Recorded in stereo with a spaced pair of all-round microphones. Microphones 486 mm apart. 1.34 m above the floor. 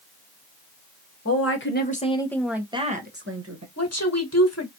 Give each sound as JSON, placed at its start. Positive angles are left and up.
{"t": 1.2, "sound": "a woman speaking", "side_deg": 30, "distance_m": 1.5}
{"t": 3.8, "sound": "a woman speaking", "side_deg": 30, "distance_m": 1.4}